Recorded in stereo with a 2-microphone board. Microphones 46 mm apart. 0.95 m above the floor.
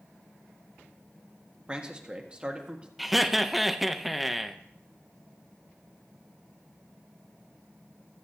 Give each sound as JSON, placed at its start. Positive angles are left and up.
{"t": 1.7, "sound": "a man speaking", "side_deg": -20, "distance_m": 1.5}
{"t": 3.0, "sound": "laughter", "side_deg": 0, "distance_m": 0.7}